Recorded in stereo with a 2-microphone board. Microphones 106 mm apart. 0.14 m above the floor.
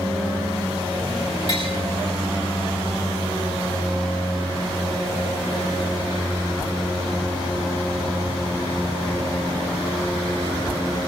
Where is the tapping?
50° left (ahead or behind), 8.5 m.